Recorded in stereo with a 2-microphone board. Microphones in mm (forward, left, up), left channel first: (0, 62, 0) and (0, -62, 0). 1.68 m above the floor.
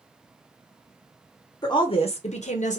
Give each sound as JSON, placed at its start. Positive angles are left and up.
{"t": 1.6, "sound": "a woman speaking", "side_deg": 35, "distance_m": 0.6}